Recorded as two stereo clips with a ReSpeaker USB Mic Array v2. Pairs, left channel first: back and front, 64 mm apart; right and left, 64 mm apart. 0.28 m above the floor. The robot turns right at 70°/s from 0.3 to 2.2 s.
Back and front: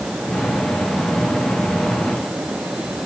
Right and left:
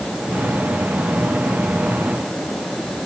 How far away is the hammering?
I don't hear hammering.